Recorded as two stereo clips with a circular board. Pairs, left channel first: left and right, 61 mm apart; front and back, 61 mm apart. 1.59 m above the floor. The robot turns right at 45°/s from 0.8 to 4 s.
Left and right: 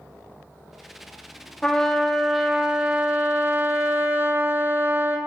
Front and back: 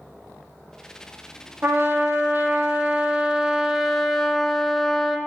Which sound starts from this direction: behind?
A trumpet, at 1.6 s.